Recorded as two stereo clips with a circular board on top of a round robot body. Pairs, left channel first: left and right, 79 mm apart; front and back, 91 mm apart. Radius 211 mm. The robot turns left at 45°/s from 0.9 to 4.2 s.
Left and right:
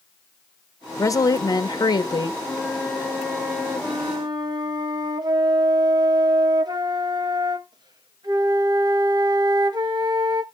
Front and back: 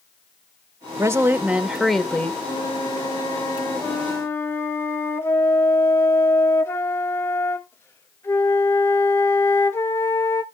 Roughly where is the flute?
Ahead.